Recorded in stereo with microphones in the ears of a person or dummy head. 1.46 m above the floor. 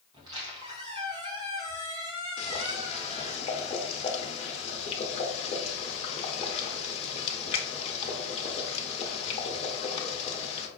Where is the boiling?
40° left (ahead or behind), 0.7 m.